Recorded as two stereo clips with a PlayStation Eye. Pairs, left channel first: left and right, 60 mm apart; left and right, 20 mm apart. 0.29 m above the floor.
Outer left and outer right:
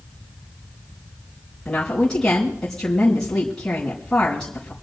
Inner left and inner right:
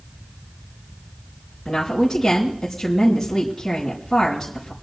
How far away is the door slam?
No door slam in this recording.